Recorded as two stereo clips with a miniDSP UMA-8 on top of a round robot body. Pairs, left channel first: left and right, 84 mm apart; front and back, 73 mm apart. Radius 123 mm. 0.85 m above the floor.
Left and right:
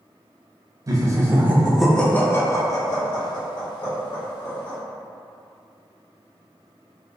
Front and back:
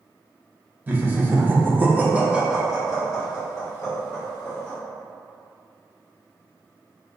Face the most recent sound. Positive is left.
turn(degrees=85)